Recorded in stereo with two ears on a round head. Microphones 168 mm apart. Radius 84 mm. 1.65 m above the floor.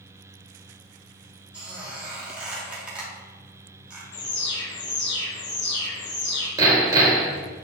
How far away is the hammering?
About 1.9 m.